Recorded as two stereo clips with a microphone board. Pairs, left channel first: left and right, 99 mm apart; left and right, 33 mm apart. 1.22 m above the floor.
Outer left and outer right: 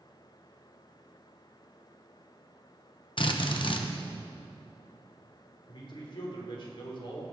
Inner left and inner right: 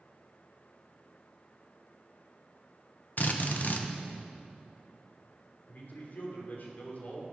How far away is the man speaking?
About 3 m.